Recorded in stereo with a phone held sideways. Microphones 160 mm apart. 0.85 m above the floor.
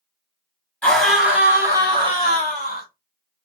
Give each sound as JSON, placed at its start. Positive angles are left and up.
{"t": 0.8, "sound": "a scream", "side_deg": 10, "distance_m": 1.0}